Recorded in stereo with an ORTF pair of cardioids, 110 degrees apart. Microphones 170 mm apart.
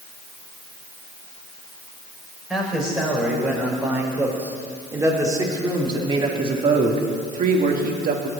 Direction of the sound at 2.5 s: 5° right.